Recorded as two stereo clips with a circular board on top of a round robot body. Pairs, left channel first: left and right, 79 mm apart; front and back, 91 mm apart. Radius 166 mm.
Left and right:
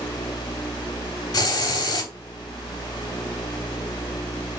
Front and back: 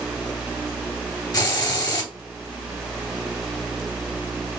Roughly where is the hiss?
Ahead left.